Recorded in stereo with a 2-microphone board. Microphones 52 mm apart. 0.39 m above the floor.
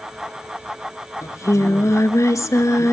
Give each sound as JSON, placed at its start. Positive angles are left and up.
{"t": 1.2, "sound": "singing", "side_deg": 75, "distance_m": 0.9}